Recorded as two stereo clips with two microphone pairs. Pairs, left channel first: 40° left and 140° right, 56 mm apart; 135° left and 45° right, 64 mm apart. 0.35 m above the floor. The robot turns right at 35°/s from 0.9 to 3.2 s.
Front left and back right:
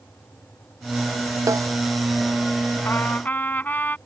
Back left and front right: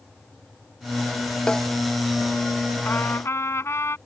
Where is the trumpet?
80° left; by 4.0 s 90° left.